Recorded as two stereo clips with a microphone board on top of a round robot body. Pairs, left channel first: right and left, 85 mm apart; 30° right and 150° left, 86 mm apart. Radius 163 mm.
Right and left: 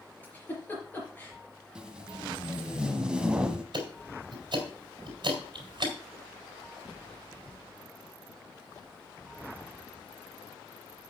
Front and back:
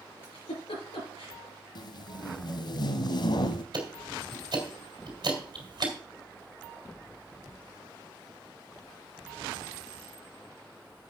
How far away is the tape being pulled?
About 0.7 m.